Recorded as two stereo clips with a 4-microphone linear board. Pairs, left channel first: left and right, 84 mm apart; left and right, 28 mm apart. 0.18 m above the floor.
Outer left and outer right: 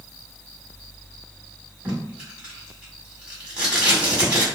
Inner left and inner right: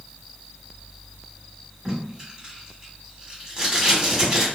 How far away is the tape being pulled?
About 1.7 m.